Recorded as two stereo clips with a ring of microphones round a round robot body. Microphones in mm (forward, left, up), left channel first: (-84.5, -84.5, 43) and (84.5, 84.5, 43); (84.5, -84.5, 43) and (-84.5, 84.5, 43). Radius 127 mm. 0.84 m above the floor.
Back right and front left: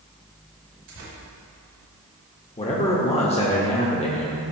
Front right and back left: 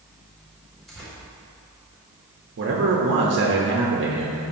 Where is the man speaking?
165° left, 1.1 m.